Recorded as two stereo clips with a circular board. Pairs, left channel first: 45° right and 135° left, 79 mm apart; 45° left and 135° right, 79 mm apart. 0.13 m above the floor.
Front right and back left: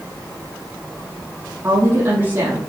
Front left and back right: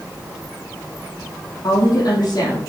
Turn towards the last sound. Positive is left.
turn(degrees=90)